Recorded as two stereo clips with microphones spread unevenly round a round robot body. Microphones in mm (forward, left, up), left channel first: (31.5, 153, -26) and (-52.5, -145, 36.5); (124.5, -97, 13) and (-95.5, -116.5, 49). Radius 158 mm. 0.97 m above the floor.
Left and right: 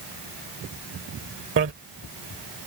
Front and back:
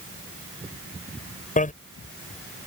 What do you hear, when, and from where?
1.6 s a bicycle bell: 50° right